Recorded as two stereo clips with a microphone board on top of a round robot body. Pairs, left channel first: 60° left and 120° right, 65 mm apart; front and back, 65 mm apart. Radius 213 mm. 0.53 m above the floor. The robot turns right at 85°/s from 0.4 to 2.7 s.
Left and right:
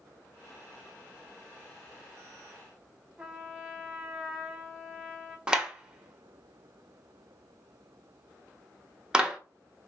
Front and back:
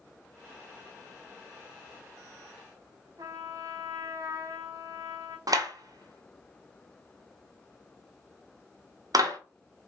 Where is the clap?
165° left, 1.3 m.